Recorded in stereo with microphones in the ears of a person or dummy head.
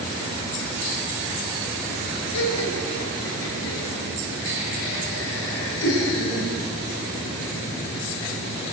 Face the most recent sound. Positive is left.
turn(degrees=80)